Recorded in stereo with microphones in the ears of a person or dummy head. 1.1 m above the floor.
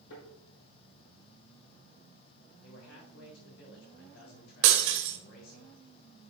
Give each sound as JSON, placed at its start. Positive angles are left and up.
{"t": 0.1, "sound": "a thud", "side_deg": 80, "distance_m": 4.5}
{"t": 2.6, "sound": "a man speaking", "side_deg": 80, "distance_m": 3.5}
{"t": 4.6, "sound": "breaking glass", "side_deg": -60, "distance_m": 1.5}